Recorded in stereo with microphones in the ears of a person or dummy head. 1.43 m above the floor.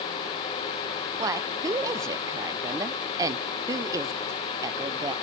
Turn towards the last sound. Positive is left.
turn(degrees=-15)  # may be behind; listen again after turning